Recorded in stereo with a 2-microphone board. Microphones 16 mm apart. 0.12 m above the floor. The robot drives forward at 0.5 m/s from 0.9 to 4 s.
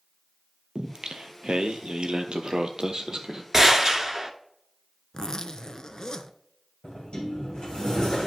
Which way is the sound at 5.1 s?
40° left (ahead or behind).